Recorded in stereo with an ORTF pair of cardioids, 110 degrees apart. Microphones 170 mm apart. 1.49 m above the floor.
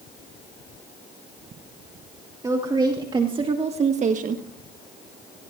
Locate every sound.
2.4 s a woman speaking: 20° right, 2.5 m; by 4.5 s 60° right, 1.2 m